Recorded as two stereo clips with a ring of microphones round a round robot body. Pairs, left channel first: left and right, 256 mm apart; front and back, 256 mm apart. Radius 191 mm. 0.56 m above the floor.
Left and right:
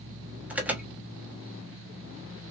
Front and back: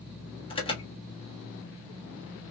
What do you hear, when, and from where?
0.5 s an alarm: 15° right, 1.2 m